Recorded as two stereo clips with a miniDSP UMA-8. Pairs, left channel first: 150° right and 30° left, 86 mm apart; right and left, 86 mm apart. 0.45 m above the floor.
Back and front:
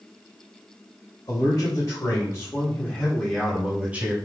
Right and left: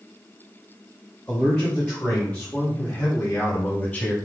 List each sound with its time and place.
1.3 s a man speaking: 170° right, 2 m; by 4.2 s 25° right, 1.6 m